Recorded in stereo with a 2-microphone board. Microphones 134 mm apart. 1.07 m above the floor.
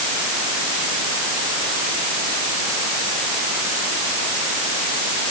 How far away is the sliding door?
No sliding door in this recording.